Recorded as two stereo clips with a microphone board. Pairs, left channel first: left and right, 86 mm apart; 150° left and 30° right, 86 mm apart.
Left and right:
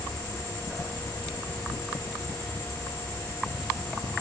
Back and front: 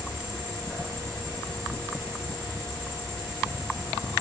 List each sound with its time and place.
0.0 s an insect: 100° left, 1.8 m